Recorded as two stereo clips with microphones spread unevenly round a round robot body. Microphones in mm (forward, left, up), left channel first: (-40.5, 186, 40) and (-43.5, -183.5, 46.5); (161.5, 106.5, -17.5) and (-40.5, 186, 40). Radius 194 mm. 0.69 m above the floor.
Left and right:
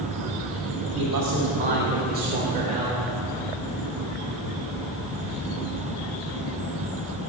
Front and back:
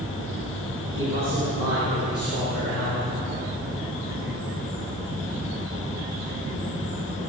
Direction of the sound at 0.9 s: 140° right.